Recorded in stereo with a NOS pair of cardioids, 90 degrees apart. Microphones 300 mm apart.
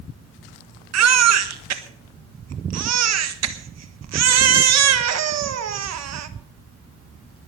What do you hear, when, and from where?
0.9 s a baby crying: 60° right, 1.4 m